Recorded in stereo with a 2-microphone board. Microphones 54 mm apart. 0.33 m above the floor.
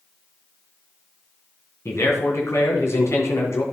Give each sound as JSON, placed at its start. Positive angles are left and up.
{"t": 1.9, "sound": "a man speaking", "side_deg": 60, "distance_m": 3.0}